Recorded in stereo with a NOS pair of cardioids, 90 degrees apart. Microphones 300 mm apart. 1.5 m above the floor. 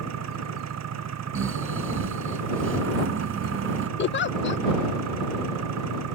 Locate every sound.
0.0 s an engine running: 60° right
1.4 s snoring: 45° right
4.0 s a giggle: 40° left